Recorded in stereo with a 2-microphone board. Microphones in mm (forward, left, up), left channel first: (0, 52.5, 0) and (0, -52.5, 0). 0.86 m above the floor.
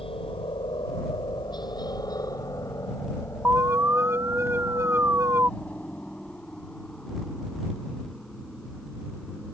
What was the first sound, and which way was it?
A helicopter, 60° left (ahead or behind).